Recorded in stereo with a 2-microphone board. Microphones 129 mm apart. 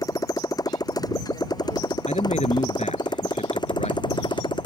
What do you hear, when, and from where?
0.0 s a motorcycle: 25° left (ahead or behind); by 4.7 s 35° left (ahead or behind)
2.1 s a man speaking: 60° left (ahead or behind)